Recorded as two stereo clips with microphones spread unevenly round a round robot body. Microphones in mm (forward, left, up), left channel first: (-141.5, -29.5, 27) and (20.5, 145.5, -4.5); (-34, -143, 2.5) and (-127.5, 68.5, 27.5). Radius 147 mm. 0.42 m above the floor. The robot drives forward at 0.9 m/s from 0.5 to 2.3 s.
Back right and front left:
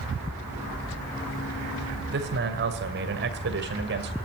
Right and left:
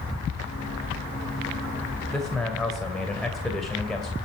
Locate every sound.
2.1 s a man speaking: 15° left, 2 m; by 4.1 s 20° left, 2 m